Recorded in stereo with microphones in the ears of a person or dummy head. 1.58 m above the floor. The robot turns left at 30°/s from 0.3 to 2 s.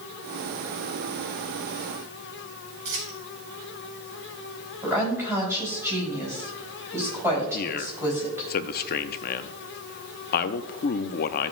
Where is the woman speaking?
15° right (ahead or behind), 4 m.